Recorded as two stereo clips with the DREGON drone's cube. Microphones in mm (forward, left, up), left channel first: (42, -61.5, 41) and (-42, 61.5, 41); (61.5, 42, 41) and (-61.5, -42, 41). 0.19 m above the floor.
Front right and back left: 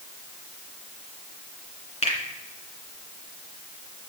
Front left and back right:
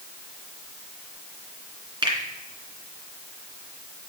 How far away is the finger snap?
About 2.5 m.